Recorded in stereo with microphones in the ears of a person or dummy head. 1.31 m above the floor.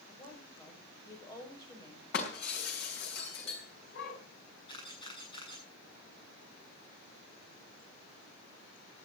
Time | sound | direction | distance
0.1 | a woman speaking | 20° left (ahead or behind) | 6.5 m
2.1 | breaking glass | 60° left (ahead or behind) | 5 m
4.7 | a camera shutter | 25° left (ahead or behind) | 7.5 m